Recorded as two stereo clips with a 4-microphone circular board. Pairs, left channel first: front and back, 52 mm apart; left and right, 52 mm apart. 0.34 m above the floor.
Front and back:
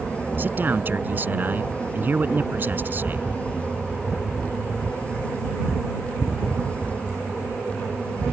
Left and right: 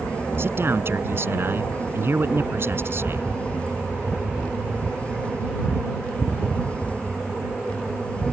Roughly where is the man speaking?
Behind right.